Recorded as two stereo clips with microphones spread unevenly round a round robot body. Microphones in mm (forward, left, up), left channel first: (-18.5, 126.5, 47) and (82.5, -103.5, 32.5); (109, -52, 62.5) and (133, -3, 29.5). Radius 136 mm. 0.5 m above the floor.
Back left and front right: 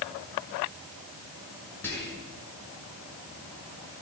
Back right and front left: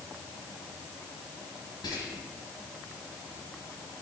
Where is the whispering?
165° right, 7.5 m.